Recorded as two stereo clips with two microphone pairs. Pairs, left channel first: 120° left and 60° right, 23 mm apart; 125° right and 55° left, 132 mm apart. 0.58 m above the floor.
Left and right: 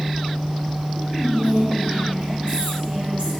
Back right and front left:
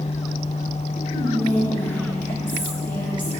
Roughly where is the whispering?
Ahead right.